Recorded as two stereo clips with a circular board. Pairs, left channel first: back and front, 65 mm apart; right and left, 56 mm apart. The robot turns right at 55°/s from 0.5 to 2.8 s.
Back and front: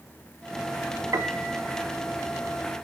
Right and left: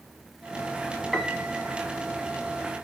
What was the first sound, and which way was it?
A piano, 5° right.